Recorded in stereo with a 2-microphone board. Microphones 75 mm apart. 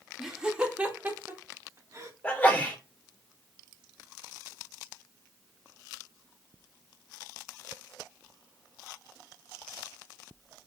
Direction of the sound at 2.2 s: 20° left (ahead or behind).